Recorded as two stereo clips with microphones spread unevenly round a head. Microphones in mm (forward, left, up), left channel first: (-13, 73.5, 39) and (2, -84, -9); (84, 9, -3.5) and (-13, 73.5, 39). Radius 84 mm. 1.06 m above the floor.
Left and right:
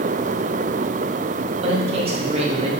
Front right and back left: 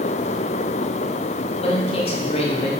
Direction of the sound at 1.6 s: 45° right.